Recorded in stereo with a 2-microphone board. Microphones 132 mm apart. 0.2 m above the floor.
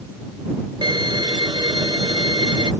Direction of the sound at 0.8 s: 35° right (ahead or behind).